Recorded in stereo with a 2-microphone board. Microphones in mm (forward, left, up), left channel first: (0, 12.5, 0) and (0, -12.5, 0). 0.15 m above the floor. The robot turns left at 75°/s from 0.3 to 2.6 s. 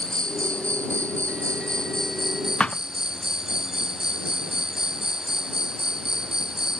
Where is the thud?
45° left (ahead or behind).